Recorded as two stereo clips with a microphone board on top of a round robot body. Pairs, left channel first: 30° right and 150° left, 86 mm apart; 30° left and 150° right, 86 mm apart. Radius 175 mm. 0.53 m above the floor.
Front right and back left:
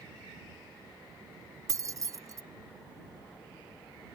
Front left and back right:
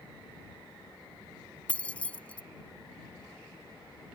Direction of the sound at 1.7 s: 105° left.